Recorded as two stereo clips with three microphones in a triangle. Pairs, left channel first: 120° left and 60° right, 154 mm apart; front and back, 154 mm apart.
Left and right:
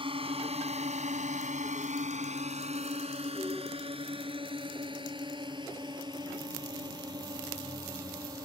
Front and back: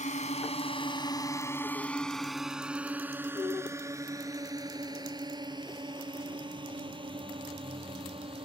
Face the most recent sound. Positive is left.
turn(degrees=-125)